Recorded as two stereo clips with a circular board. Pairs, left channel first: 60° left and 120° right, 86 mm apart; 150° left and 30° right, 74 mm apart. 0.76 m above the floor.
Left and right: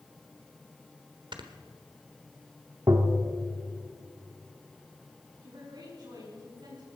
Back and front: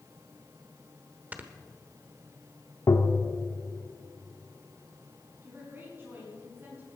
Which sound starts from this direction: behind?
Tapping, at 2.9 s.